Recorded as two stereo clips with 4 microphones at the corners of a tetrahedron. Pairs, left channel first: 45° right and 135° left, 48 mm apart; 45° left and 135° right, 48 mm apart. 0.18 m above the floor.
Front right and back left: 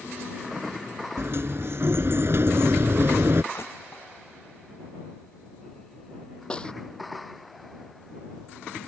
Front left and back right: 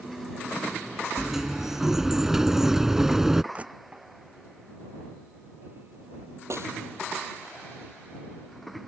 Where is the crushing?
70° right.